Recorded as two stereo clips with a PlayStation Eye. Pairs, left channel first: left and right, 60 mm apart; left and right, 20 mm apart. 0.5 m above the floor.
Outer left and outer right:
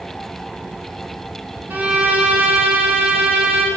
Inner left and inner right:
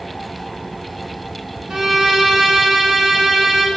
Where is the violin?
30° right (ahead or behind), 1.8 m.